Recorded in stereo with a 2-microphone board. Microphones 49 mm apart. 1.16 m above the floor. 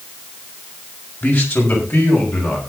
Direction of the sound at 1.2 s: 50° left (ahead or behind).